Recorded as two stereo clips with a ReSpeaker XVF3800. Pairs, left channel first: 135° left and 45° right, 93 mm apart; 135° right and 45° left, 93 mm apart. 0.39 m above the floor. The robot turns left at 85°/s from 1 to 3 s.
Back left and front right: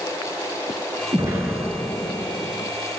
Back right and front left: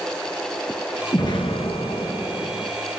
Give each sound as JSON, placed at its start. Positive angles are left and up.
{"t": 1.1, "sound": "an explosion", "azimuth_deg": -90, "distance_m": 3.5}